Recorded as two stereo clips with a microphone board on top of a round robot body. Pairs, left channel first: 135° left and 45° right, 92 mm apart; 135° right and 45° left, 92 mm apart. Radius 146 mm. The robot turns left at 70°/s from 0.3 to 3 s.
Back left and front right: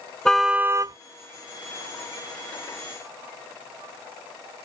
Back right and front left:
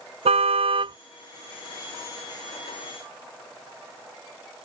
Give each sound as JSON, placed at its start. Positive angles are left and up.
{"t": 0.2, "sound": "a car horn", "azimuth_deg": 50}